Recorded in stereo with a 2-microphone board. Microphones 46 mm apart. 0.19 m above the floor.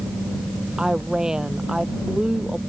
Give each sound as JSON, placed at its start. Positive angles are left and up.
{"t": 0.8, "sound": "a woman speaking", "side_deg": -15}